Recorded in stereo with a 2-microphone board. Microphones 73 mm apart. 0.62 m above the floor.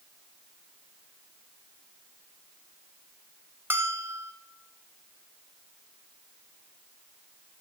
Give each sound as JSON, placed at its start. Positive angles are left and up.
{"t": 3.7, "sound": "a bell", "side_deg": -30, "distance_m": 0.7}